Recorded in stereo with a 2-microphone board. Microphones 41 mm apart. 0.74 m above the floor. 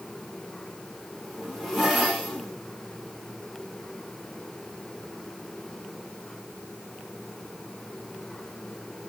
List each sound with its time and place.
1.1 s a zipper: centre (ahead or behind), 3.5 m